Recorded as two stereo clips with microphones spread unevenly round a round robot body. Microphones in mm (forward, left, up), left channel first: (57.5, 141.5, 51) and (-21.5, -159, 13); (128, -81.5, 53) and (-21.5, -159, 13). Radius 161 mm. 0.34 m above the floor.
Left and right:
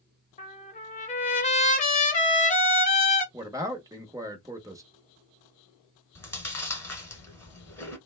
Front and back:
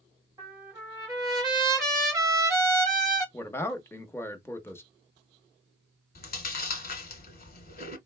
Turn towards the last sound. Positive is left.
turn(degrees=-5)